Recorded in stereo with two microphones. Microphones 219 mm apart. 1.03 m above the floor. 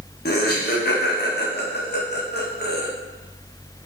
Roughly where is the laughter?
Left.